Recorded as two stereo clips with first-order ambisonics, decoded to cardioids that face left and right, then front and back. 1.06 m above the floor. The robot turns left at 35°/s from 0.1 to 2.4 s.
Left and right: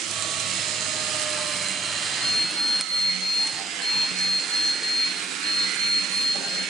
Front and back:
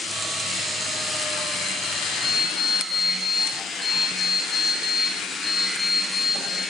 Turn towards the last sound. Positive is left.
turn(degrees=90)